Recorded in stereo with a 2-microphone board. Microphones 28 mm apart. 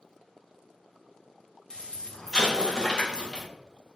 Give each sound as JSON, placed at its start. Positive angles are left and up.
{"t": 1.7, "sound": "an explosion", "side_deg": 25, "distance_m": 0.7}